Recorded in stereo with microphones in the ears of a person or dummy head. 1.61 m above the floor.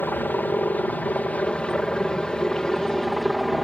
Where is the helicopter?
10° left (ahead or behind); by 3.6 s centre (ahead or behind).